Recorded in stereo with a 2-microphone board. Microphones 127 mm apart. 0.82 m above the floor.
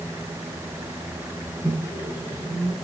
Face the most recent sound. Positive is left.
turn(degrees=-30)  # may be behind; listen again after turning